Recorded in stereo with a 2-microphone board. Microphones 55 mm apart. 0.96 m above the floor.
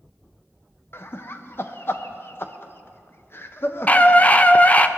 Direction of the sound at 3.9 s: 30° left (ahead or behind).